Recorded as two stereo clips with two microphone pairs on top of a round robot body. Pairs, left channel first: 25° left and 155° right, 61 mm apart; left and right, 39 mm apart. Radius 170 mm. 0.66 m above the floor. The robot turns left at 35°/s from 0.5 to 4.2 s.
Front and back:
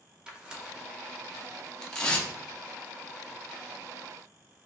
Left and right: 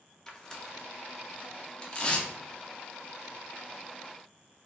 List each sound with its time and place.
0.3 s tearing paper: 140° left, 0.9 m; by 2.3 s 75° left, 0.9 m